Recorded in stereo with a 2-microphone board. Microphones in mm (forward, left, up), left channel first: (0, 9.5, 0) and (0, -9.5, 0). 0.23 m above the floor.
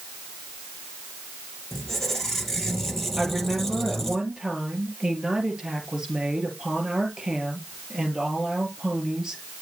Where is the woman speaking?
25° right (ahead or behind), 4 m.